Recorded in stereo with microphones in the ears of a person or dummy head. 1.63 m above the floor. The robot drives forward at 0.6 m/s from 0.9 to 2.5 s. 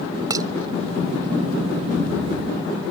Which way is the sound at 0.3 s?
25° right (ahead or behind).